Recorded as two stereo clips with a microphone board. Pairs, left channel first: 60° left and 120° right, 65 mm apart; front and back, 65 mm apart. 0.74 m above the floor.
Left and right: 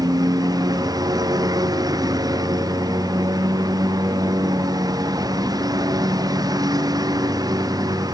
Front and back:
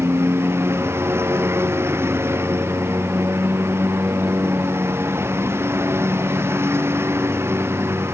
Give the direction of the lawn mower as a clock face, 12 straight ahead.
4 o'clock.